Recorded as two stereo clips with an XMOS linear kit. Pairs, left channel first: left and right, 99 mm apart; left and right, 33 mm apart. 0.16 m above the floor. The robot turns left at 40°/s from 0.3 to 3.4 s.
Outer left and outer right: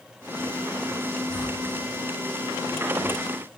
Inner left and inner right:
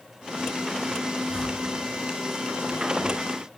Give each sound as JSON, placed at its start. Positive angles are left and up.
{"t": 1.3, "sound": "a whoosh", "side_deg": 55, "distance_m": 2.5}